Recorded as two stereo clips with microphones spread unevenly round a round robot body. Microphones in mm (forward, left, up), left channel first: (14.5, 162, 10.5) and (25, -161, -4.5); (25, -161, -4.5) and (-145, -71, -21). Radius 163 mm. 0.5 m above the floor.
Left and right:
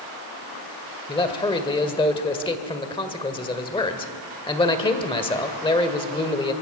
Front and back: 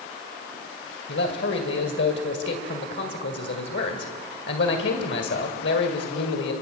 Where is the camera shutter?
No camera shutter in this recording.